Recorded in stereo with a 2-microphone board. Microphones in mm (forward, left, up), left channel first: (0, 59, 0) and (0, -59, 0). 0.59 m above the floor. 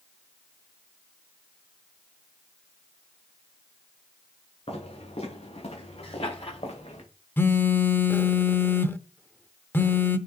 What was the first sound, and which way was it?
Footsteps, 65° left (ahead or behind).